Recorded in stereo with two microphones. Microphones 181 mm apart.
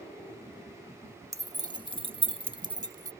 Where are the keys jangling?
15° right (ahead or behind); by 3.1 s 20° right (ahead or behind).